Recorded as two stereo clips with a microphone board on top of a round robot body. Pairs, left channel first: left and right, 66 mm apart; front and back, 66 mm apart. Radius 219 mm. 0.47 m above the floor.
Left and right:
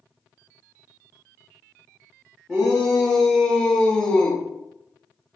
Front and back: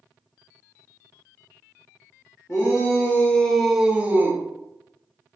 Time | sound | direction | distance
2.5 | a shout | 5° left | 1.1 m